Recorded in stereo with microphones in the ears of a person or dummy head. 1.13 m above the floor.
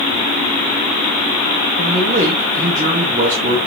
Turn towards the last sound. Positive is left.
turn(degrees=-45)  # may be behind; listen again after turning